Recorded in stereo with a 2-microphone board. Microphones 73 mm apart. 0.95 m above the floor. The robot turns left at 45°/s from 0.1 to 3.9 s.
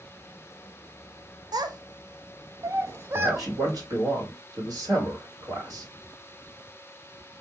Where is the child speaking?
65° right (ahead or behind), 0.7 m; by 3.5 s 20° right (ahead or behind), 0.7 m.